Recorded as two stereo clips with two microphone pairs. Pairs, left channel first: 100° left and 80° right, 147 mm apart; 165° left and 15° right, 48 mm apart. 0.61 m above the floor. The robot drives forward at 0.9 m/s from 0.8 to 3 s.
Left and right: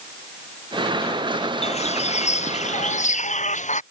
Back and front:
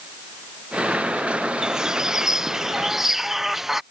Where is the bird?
55° left; by 3.8 s 65° left.